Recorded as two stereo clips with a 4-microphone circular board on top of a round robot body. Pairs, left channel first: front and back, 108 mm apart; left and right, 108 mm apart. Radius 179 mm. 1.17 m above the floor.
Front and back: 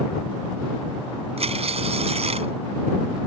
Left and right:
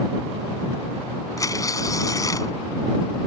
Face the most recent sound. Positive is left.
turn(degrees=150)